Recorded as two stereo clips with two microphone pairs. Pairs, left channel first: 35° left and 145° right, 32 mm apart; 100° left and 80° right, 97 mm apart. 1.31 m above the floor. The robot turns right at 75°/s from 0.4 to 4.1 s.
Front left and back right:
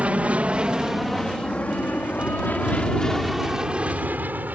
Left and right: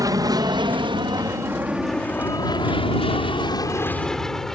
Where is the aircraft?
115° right; by 4.6 s 175° right.